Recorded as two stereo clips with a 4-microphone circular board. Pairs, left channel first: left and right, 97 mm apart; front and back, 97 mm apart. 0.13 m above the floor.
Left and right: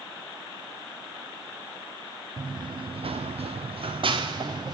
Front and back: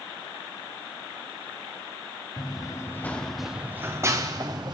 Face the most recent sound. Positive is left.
turn(degrees=-135)